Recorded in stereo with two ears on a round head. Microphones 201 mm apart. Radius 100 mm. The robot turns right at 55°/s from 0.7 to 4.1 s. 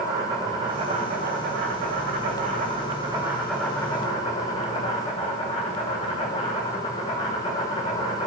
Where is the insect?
155° right, 2.5 m; by 8.3 s 30° left, 2.5 m.